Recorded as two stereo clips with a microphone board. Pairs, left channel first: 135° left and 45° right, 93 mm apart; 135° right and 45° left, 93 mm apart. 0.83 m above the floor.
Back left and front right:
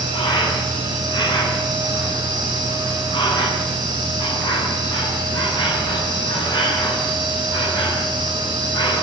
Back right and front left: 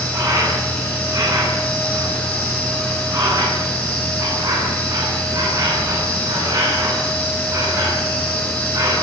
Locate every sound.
0.0 s an insect: 100° left, 10 m